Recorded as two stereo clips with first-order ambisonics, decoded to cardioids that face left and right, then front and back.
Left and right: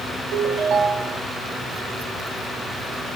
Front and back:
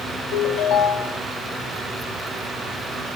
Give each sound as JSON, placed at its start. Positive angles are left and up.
{"t": 0.3, "sound": "a ringtone", "azimuth_deg": -25, "distance_m": 1.4}